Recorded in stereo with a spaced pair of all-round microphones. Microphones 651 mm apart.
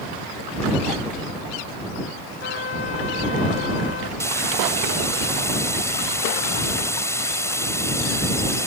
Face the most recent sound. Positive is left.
turn(degrees=5)  # may be behind; listen again after turning